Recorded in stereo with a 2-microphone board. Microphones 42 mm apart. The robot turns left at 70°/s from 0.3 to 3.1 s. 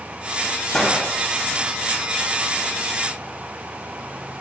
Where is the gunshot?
10° left (ahead or behind), 0.6 m; by 1.0 s 10° right (ahead or behind), 0.6 m.